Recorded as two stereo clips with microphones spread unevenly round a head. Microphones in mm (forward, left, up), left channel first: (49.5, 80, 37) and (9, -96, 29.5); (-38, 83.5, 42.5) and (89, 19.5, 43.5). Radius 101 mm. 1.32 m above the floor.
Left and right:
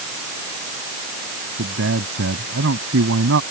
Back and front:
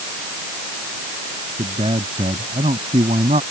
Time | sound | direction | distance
1.6 | a man speaking | 90° right | ?